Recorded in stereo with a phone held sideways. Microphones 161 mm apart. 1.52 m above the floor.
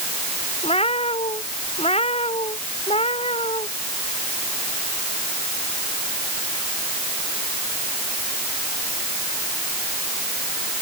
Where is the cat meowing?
35° left (ahead or behind).